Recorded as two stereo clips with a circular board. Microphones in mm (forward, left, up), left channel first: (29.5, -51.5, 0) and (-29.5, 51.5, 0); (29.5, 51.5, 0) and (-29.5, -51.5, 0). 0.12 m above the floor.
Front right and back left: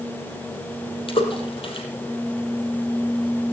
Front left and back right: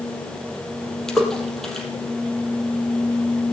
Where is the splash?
25° right, 3.5 m.